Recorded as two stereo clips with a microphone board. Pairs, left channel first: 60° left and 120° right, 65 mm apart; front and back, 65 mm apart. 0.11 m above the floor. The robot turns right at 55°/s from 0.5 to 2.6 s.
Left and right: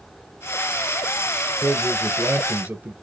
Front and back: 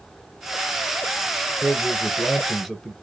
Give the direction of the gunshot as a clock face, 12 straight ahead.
No gunshot in this recording.